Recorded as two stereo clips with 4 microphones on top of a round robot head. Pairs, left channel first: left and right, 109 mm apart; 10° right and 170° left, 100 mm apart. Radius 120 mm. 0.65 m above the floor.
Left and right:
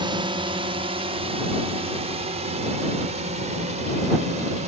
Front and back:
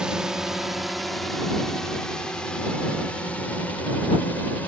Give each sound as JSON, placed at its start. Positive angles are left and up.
{"t": 0.0, "sound": "a drone", "azimuth_deg": -110}